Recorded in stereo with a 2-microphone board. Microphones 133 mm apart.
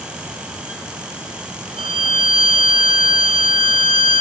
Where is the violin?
45° right (ahead or behind), 1.5 m.